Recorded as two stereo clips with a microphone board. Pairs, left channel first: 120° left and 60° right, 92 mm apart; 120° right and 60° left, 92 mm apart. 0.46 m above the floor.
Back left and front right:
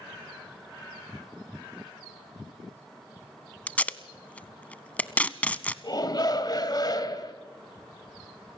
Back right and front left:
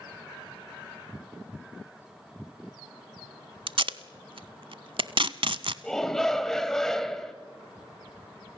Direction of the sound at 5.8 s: 155° left.